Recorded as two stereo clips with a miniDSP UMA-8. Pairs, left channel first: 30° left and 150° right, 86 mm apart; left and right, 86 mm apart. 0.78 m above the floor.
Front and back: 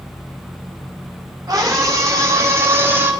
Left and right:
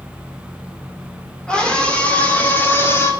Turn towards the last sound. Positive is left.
turn(degrees=145)